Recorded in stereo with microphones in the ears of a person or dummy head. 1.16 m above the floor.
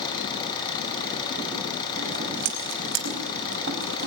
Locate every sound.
0.0 s an engine running: 25° left (ahead or behind), 5.5 m
2.0 s scissors: 65° right (ahead or behind), 4.5 m